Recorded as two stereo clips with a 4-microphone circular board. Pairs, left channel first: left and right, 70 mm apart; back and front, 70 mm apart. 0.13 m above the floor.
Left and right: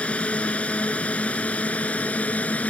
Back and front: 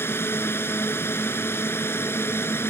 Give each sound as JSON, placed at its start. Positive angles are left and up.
{"t": 0.0, "sound": "a drone", "azimuth_deg": 150}